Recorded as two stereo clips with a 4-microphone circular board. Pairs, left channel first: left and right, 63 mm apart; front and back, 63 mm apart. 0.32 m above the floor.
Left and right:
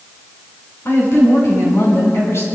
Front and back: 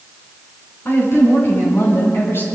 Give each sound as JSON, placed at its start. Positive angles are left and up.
{"t": 0.8, "sound": "a woman speaking", "azimuth_deg": 45, "distance_m": 6.0}